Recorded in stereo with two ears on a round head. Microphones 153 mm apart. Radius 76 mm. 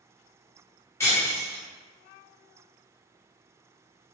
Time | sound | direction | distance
1.0 | breaking glass | 15° left (ahead or behind) | 1.0 m